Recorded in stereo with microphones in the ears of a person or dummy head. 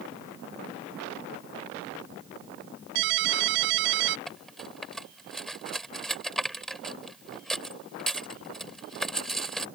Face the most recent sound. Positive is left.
turn(degrees=-5)  # may be behind; listen again after turning